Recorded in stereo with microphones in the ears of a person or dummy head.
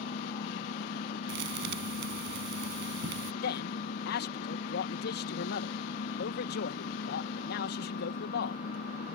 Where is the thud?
60° right (ahead or behind).